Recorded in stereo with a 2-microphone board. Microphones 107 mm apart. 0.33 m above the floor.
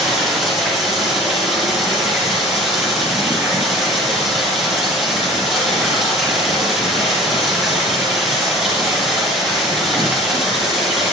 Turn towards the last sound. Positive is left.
turn(degrees=0)  # may be behind; listen again after turning